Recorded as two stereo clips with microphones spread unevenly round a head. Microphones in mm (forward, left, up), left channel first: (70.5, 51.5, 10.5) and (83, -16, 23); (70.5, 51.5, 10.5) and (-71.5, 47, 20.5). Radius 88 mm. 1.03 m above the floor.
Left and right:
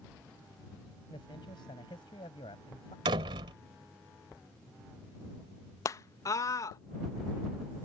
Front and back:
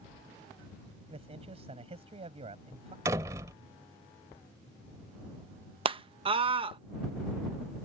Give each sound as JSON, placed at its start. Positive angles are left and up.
{"t": 1.1, "sound": "a man speaking", "azimuth_deg": 135}
{"t": 3.0, "sound": "a door slam", "azimuth_deg": -105}
{"t": 5.8, "sound": "a scream", "azimuth_deg": 135}